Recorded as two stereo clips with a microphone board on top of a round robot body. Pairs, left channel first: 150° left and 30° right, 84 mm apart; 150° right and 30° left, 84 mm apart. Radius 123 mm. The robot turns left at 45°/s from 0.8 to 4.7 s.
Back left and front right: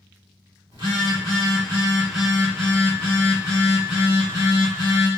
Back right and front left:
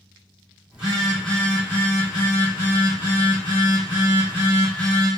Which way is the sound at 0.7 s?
45° right.